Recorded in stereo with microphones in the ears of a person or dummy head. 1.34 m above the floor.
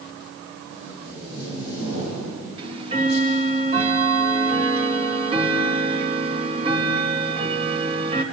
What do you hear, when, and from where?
0.7 s tape being pulled: 25° right (ahead or behind), 9.5 m
2.6 s ticking: 35° right (ahead or behind), 1.7 m